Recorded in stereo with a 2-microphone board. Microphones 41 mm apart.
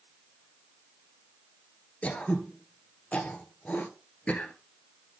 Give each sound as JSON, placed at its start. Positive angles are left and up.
{"t": 2.0, "sound": "throat clearing", "side_deg": 35, "distance_m": 0.9}